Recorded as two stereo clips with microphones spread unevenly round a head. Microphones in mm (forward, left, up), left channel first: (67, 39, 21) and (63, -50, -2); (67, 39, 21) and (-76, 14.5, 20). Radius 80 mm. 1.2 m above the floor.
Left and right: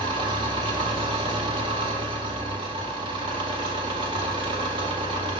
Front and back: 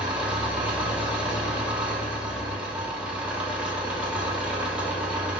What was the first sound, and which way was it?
An engine running, 90° right.